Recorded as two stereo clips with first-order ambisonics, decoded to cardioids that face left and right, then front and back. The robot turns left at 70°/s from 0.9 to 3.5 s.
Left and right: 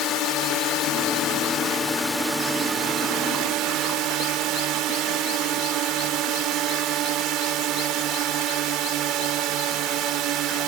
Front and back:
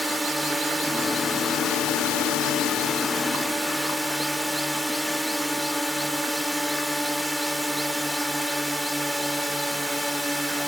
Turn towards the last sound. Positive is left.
turn(degrees=-90)